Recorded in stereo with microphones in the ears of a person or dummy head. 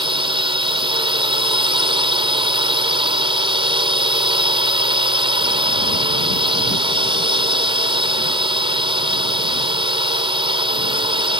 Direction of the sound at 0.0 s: 25° right (ahead or behind).